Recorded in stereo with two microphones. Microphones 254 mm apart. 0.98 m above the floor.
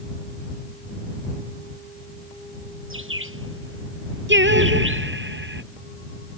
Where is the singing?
45° right (ahead or behind).